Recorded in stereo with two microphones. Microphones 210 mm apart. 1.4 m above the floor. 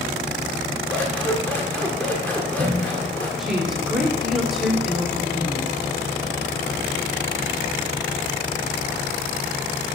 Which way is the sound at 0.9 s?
5° left (ahead or behind).